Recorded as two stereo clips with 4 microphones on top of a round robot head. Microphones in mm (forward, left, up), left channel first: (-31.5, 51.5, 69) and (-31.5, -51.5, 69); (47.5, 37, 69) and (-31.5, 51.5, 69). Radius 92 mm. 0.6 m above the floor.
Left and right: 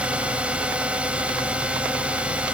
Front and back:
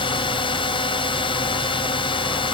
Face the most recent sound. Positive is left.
turn(degrees=-10)